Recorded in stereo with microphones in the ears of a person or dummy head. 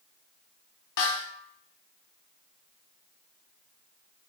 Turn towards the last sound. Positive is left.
turn(degrees=60)  # may be behind; listen again after turning